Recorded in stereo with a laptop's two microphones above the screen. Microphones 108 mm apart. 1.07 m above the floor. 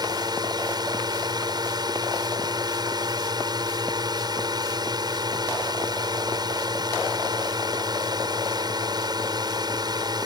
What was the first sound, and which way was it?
A drone, 40° right (ahead or behind).